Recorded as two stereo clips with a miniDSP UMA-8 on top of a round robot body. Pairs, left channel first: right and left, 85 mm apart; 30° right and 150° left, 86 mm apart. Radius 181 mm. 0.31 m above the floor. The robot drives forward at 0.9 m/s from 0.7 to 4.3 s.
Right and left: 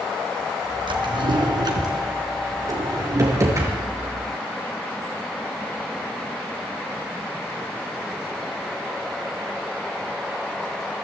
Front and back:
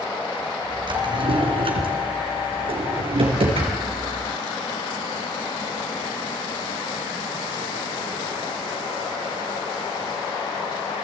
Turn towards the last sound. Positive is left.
turn(degrees=150)